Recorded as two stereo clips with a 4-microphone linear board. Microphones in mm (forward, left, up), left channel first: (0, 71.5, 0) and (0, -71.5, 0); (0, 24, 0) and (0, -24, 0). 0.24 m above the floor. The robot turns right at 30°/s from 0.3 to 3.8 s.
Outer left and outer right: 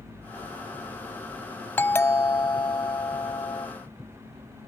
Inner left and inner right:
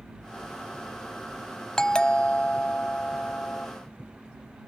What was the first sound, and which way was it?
A doorbell, 25° left.